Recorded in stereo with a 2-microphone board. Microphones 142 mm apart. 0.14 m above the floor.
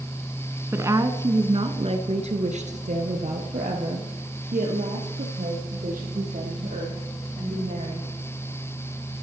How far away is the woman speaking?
About 1.1 m.